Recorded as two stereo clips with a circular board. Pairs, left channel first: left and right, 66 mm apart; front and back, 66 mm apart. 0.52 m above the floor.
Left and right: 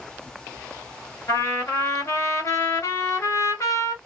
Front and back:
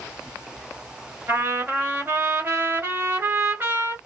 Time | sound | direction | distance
1.3 | a trumpet | 130° left | 1.3 m